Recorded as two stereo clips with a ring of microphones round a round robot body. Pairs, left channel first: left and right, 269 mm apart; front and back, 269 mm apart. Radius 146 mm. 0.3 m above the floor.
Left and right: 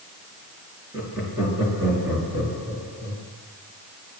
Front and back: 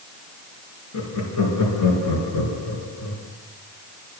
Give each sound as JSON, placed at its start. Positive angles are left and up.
{"t": 0.9, "sound": "laughter", "azimuth_deg": -5, "distance_m": 5.0}